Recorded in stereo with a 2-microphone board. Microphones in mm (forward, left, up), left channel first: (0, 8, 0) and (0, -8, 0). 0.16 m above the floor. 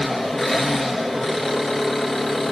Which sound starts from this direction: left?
An engine running, at 0.0 s.